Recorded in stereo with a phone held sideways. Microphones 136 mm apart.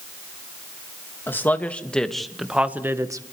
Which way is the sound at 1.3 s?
15° left (ahead or behind).